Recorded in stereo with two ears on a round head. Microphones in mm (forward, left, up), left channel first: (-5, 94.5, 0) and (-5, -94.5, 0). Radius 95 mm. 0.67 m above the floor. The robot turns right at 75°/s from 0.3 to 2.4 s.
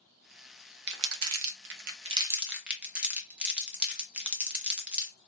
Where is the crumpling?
55° right (ahead or behind), 0.6 m; by 5.1 s 5° right (ahead or behind), 0.6 m.